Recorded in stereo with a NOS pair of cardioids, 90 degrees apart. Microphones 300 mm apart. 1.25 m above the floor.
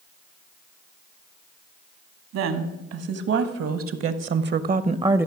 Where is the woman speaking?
65° right, 2 m; by 5.3 s 5° right, 0.7 m.